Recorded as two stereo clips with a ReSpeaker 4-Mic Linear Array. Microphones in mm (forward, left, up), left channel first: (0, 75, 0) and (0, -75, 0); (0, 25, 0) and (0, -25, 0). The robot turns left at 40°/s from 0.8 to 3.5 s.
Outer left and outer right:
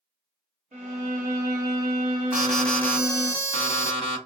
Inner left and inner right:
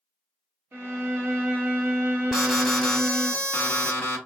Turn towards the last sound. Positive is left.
turn(degrees=145)